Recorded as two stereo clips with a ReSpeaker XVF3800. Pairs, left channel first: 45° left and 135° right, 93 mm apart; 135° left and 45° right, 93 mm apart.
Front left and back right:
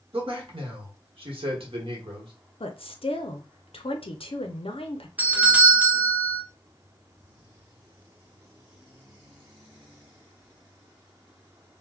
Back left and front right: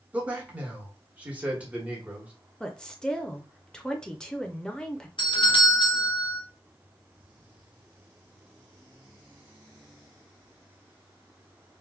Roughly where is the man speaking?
Behind right.